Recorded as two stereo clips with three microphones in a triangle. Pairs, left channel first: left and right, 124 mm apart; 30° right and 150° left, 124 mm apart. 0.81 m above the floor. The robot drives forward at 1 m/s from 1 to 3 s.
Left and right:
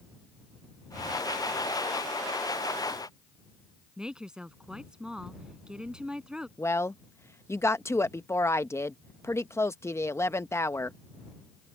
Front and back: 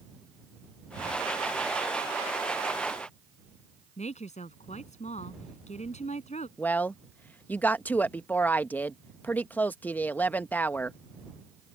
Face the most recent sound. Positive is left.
turn(degrees=35)